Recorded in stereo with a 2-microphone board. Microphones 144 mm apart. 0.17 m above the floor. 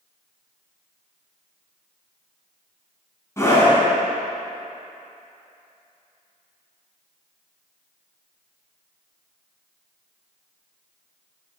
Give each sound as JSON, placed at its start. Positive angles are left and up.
{"t": 3.4, "sound": "a scream", "side_deg": 20, "distance_m": 1.7}